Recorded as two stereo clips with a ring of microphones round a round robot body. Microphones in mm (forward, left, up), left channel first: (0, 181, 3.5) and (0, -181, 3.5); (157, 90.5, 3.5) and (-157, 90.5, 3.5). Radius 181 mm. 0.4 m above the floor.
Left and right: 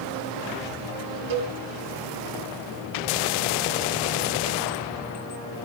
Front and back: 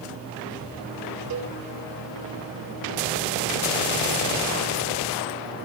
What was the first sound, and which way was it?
A cowbell, 125° right.